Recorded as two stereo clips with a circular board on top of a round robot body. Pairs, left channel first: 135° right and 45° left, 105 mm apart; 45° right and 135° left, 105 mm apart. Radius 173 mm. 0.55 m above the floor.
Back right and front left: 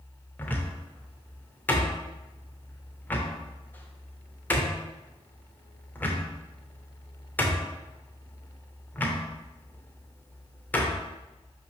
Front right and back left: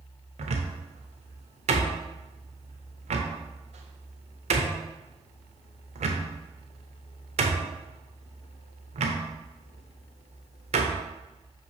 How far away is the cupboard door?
About 0.7 m.